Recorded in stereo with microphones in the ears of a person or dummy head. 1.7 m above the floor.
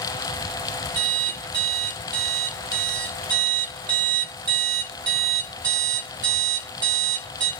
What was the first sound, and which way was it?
An alarm clock, 25° right (ahead or behind).